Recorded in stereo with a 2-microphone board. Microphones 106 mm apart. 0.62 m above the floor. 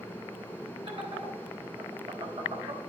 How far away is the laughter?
About 3 m.